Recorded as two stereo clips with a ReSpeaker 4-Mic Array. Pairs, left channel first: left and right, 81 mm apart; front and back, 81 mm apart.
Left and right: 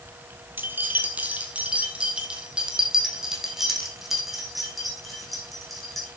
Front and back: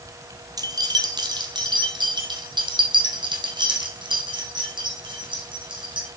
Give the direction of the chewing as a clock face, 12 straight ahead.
No chewing in this recording.